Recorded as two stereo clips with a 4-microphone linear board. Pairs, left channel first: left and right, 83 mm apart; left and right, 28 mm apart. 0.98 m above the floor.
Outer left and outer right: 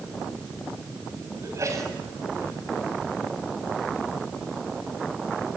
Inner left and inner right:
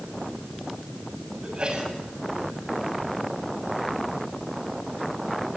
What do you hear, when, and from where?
1.4 s a sneeze: 35° right (ahead or behind), 7 m